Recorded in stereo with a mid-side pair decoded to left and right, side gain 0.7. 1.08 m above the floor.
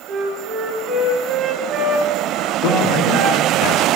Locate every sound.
0.1 s a flute: 45° right, 3 m
2.6 s a man speaking: 60° left, 2 m